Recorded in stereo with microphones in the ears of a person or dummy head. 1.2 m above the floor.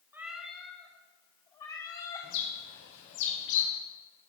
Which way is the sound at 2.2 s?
70° left (ahead or behind).